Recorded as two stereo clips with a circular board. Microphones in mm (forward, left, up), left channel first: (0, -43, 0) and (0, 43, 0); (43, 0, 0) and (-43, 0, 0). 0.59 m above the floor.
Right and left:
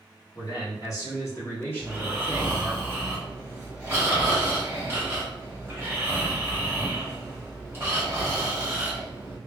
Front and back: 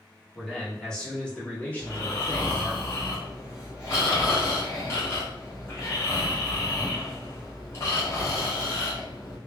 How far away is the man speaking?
About 1.4 m.